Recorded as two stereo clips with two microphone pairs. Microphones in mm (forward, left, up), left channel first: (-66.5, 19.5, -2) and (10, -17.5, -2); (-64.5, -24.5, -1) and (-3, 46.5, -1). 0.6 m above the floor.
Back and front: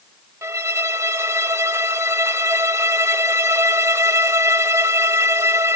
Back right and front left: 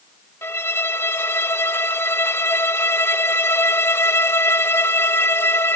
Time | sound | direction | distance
0.4 | a violin | 75° right | ?